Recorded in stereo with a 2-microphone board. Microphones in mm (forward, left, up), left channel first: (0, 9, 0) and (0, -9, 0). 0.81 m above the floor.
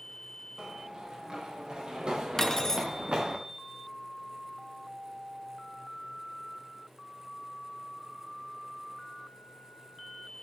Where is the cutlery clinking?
20° left (ahead or behind), 0.6 m.